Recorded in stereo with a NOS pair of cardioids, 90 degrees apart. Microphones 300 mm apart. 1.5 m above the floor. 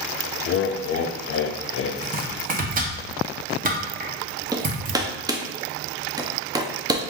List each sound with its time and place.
0.5 s laughter: 45° left, 0.6 m
2.0 s chopping: 30° right, 1.0 m
4.5 s hammering: 15° right, 0.6 m